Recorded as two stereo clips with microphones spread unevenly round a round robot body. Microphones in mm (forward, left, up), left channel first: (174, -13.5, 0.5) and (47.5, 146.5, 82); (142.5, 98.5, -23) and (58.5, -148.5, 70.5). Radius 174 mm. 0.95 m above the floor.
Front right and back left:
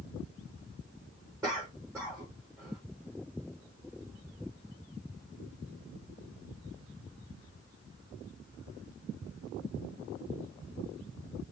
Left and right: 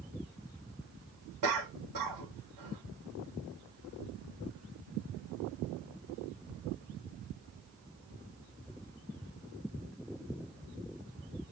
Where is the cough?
145° right, 3 m.